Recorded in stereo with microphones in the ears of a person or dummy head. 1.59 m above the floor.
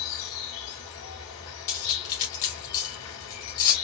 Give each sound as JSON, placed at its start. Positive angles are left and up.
{"t": 0.0, "sound": "an insect", "side_deg": 70, "distance_m": 2.5}
{"t": 1.7, "sound": "cutlery clinking", "side_deg": 45, "distance_m": 1.5}